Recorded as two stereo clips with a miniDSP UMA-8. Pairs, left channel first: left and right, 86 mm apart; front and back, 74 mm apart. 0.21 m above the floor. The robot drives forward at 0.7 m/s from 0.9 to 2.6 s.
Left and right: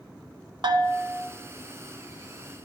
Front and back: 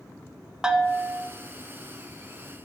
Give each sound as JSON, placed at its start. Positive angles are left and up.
{"t": 0.6, "sound": "a bell", "azimuth_deg": -100, "distance_m": 0.7}